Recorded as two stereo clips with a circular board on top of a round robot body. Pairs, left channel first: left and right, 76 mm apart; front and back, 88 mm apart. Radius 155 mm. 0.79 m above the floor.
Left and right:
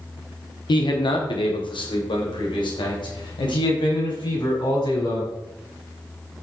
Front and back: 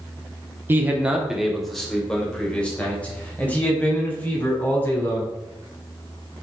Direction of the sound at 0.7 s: 115° left.